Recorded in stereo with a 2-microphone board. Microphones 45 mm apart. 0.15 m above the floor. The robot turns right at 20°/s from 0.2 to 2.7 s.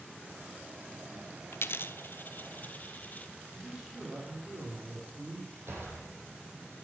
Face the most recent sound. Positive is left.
turn(degrees=-70)  # may be behind; listen again after turning